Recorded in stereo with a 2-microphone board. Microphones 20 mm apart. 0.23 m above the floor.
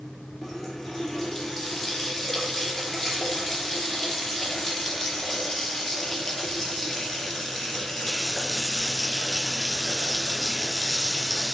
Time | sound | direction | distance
0.4 | a running tap | 15° left (ahead or behind) | 2.5 m